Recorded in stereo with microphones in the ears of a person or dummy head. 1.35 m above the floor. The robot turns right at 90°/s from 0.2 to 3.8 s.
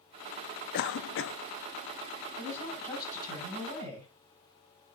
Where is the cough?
55° left, 0.6 m; by 1.4 s 110° left, 0.6 m.